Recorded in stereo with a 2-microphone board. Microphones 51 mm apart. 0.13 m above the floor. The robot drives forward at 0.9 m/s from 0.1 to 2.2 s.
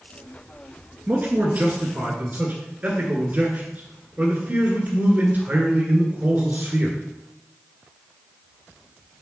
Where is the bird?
I don't hear a bird.